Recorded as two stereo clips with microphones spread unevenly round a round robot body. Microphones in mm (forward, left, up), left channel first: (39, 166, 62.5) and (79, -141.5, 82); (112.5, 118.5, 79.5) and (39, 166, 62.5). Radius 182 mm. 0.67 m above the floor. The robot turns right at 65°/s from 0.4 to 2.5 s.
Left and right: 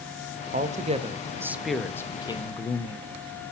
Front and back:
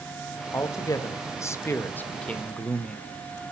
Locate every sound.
0.5 s a man speaking: 60° right, 1.0 m; by 3.1 s 70° left, 1.0 m